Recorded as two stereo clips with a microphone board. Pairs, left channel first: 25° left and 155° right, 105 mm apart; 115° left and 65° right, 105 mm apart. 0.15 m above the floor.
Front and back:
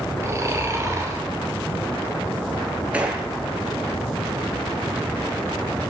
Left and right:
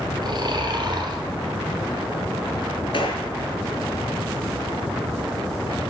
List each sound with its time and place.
0.2 s snoring: 100° right, 1.2 m
2.9 s a gunshot: 125° left, 1.0 m